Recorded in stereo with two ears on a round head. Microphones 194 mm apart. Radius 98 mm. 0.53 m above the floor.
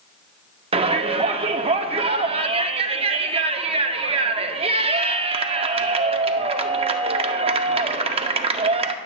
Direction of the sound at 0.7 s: 25° right (ahead or behind).